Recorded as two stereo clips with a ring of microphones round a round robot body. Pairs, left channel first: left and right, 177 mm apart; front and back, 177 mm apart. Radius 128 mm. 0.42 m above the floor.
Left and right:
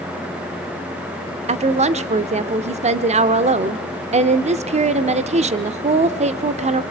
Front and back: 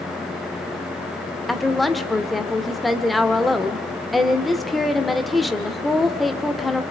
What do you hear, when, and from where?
1.5 s a woman speaking: 90° right, 0.9 m